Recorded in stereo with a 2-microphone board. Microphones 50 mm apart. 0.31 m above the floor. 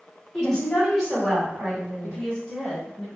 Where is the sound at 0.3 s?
10° left (ahead or behind), 1.7 m; by 2.2 s 30° right (ahead or behind), 1.7 m.